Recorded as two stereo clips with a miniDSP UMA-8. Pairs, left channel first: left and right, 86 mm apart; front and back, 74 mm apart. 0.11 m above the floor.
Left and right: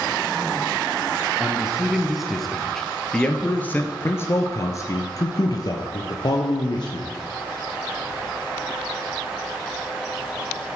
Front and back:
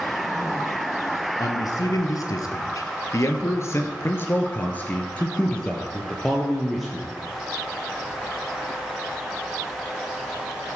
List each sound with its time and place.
1.4 s a man speaking: 15° right, 2 m; by 7.1 s 95° left, 2.5 m